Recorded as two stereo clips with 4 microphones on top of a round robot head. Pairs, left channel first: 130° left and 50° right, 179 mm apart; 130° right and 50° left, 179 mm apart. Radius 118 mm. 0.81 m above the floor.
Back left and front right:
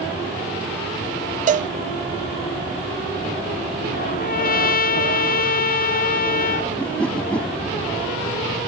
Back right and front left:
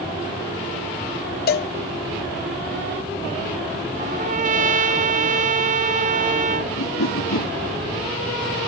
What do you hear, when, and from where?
1.5 s a cowbell: 95° right
4.0 s a trumpet: 95° left
6.8 s a whoosh: 145° right